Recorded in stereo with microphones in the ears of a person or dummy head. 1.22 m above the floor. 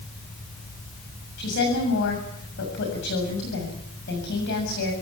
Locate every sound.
1.4 s a woman speaking: 55° left (ahead or behind), 7.5 m